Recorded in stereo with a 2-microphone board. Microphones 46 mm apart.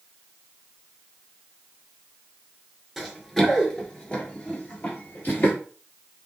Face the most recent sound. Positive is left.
turn(degrees=45)  # may be behind; listen again after turning